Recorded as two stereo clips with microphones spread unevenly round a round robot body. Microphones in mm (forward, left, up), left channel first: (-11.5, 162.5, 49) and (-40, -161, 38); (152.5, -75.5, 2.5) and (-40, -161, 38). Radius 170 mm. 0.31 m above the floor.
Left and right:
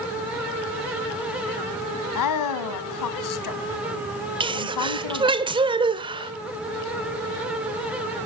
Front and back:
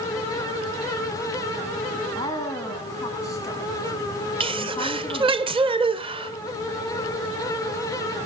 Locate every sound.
2.1 s a woman speaking: 100° left, 2 m
4.4 s a sneeze: 120° right, 1.0 m